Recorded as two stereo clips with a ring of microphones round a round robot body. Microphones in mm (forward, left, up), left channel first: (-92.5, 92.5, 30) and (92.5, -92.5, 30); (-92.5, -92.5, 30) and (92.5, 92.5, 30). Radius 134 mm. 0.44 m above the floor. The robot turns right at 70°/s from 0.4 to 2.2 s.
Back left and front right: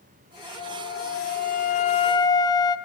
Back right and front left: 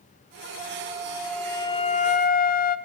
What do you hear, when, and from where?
0.6 s a flute: 85° left, 1.3 m; by 2.8 s 160° right, 1.3 m